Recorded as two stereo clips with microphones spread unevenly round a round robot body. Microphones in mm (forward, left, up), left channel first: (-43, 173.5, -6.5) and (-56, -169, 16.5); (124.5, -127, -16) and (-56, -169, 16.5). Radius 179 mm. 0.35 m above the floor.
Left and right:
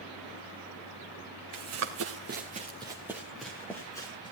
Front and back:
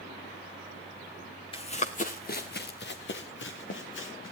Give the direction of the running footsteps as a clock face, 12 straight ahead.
2 o'clock.